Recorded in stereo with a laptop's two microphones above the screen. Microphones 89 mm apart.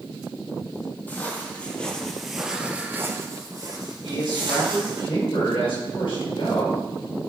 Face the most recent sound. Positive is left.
turn(degrees=75)  # may be behind; listen again after turning